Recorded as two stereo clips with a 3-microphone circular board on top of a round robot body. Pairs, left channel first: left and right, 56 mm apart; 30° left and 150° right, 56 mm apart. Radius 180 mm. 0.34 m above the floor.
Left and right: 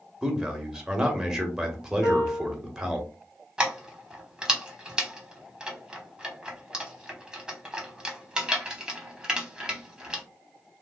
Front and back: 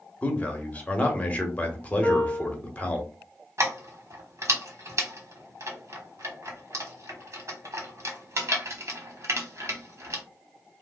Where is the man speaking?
20° right, 1.3 m.